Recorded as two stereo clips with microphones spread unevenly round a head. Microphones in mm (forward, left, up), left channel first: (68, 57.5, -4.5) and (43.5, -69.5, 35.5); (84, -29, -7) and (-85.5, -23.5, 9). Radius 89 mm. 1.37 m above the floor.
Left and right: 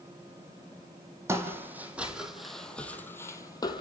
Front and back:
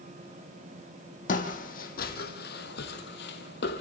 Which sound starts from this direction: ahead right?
Footsteps, at 1.3 s.